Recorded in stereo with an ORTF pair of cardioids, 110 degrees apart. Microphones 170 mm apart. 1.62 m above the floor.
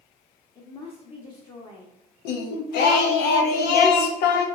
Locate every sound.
0.6 s a woman speaking: 25° left, 1.2 m
2.2 s singing: 70° left, 0.8 m